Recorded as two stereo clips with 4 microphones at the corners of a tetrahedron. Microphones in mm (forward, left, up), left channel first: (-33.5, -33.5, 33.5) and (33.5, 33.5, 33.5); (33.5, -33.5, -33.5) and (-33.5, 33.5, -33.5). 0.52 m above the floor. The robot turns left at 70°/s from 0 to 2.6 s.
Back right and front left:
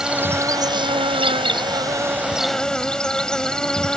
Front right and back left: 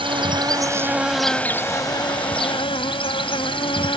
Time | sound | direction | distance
0.0 | an insect | 130° left | ?